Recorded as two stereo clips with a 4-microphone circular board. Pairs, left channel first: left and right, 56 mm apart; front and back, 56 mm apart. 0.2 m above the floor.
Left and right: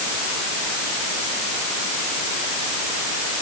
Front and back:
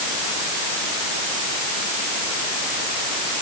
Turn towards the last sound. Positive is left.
No sound to turn to.